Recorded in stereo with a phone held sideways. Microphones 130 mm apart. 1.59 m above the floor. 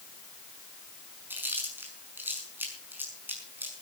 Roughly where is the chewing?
Centre.